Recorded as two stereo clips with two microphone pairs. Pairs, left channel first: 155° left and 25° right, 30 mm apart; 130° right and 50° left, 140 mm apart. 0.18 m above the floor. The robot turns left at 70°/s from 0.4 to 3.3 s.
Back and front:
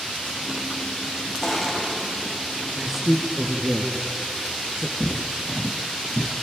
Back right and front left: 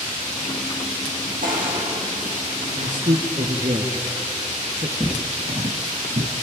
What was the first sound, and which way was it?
Crushing, 65° left.